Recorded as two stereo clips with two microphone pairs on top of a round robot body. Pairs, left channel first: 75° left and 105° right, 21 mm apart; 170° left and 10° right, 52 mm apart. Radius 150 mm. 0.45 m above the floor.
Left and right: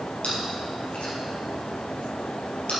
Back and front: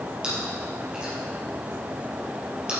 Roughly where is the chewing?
Ahead left.